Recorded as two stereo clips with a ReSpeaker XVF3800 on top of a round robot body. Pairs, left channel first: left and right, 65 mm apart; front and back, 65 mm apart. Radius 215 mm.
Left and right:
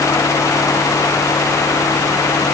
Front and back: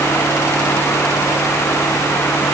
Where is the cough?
No cough in this recording.